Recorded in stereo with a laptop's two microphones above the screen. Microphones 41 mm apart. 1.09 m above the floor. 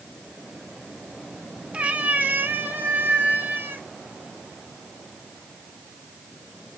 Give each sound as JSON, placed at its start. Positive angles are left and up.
{"t": 1.7, "sound": "a cat meowing", "side_deg": -30, "distance_m": 0.8}